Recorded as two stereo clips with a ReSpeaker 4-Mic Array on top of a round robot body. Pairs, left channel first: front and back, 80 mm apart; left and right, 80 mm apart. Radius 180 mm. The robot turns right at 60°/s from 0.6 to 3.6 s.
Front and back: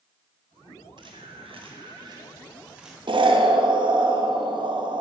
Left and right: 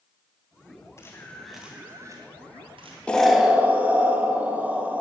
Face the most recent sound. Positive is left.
turn(degrees=-160)